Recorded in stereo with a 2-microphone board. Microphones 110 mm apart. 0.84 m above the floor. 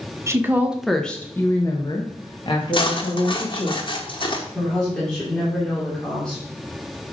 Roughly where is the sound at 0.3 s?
Right.